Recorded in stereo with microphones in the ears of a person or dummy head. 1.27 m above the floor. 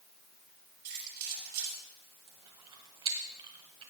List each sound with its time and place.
0.8 s keys jangling: 50° right (ahead or behind), 7 m
2.3 s chewing: 25° right (ahead or behind), 1.6 m